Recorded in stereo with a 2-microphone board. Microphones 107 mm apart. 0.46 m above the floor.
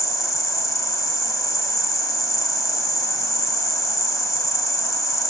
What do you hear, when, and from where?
0.0 s an insect: 35° left (ahead or behind), 1.2 m